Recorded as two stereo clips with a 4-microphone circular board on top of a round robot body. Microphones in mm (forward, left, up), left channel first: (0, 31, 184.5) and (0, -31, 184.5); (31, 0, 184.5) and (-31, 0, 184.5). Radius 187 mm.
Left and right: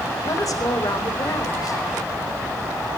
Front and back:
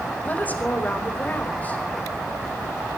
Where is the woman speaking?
65° left, 5 m.